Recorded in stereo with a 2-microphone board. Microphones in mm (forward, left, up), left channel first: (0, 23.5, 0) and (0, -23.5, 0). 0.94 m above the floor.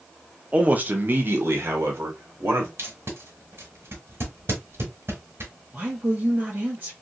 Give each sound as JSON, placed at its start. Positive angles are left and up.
{"t": 0.5, "sound": "a man speaking", "side_deg": -25, "distance_m": 0.6}
{"t": 2.8, "sound": "tape being pulled", "side_deg": -60, "distance_m": 1.2}
{"t": 5.7, "sound": "a woman speaking", "side_deg": -40, "distance_m": 1.0}